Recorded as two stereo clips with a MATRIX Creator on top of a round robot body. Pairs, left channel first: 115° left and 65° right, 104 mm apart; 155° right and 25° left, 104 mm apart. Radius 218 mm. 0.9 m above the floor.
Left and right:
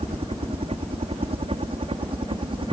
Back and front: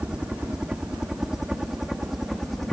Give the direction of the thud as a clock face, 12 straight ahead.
I don't hear a thud.